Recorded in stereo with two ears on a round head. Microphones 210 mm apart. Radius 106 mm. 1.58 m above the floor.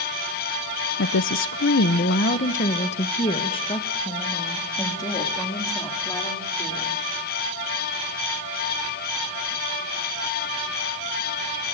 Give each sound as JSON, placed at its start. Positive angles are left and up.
{"t": 1.0, "sound": "a woman speaking", "side_deg": 50, "distance_m": 0.6}